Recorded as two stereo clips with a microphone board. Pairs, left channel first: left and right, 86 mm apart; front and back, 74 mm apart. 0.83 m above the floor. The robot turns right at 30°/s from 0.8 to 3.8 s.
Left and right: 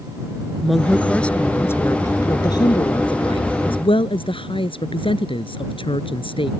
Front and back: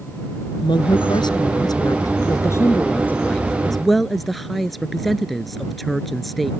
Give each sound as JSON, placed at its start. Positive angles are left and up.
{"t": 0.6, "sound": "a woman speaking", "azimuth_deg": 0}